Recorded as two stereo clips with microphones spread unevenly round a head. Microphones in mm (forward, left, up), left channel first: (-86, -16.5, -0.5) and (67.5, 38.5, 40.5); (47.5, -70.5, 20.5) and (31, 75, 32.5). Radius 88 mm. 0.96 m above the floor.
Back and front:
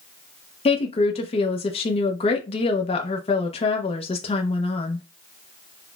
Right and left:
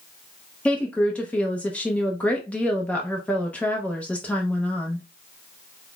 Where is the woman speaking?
160° right, 0.5 m.